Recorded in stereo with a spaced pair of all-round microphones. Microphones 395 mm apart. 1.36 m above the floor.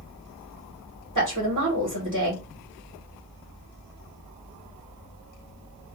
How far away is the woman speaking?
About 1.7 m.